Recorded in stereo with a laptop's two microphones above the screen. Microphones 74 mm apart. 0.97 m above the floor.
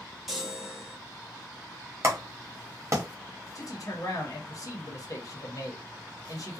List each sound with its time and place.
0.3 s a chime: centre (ahead or behind), 1.4 m
2.0 s a clap: 40° right (ahead or behind), 0.8 m
3.5 s a man speaking: 50° left (ahead or behind), 0.8 m